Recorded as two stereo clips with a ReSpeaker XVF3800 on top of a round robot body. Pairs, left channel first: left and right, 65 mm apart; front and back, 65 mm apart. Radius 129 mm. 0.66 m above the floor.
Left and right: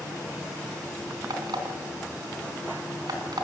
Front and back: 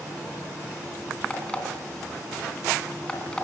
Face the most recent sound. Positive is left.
turn(degrees=-75)